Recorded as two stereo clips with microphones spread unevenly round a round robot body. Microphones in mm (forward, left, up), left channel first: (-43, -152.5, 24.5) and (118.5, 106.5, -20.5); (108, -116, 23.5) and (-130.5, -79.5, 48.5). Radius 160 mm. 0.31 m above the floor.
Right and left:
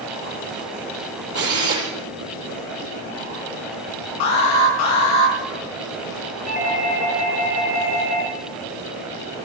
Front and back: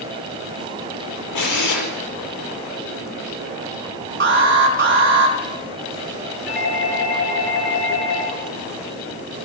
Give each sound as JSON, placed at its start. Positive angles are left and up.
{"t": 1.4, "sound": "a drill", "azimuth_deg": 0, "distance_m": 7.0}
{"t": 4.2, "sound": "an alarm", "azimuth_deg": -150, "distance_m": 4.5}
{"t": 6.5, "sound": "a doorbell", "azimuth_deg": -55, "distance_m": 7.0}